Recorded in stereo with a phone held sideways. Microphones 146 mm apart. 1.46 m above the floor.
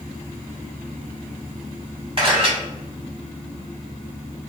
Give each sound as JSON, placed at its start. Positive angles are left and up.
{"t": 2.2, "sound": "a camera shutter", "side_deg": -40, "distance_m": 1.6}